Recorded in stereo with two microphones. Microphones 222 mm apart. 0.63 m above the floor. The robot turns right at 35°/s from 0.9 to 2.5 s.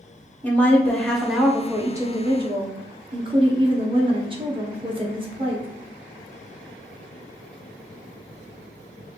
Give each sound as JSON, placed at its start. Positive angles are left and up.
{"t": 0.4, "sound": "a woman speaking", "azimuth_deg": 170, "distance_m": 0.8}